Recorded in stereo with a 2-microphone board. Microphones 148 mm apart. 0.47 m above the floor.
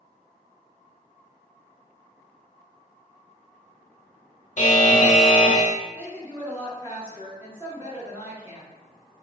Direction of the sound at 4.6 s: 55° left (ahead or behind).